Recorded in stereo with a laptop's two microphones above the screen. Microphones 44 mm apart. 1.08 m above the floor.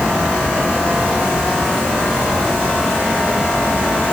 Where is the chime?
No chime in this recording.